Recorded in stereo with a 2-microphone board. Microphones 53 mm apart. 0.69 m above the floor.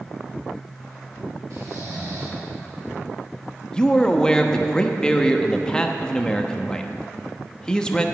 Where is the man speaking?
15° left (ahead or behind), 0.6 m.